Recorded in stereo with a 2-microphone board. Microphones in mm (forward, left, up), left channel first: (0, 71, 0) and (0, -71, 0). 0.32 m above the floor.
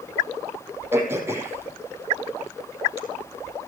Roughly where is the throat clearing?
Centre.